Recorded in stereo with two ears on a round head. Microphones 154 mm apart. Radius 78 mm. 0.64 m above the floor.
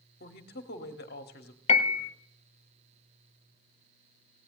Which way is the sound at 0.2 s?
60° left (ahead or behind).